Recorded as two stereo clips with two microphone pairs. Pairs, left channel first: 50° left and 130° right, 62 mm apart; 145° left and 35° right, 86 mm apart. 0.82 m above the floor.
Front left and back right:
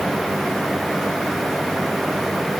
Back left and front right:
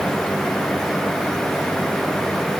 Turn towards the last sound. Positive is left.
No sound to turn to.